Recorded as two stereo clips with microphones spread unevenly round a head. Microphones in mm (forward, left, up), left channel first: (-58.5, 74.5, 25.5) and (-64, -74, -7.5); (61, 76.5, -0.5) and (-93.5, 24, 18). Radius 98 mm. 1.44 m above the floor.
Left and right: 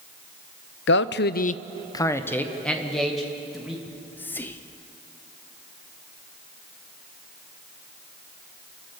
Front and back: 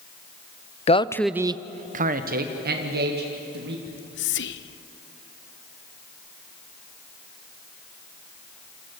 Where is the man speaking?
70° left, 0.6 m; by 3.8 s straight behind, 2.5 m.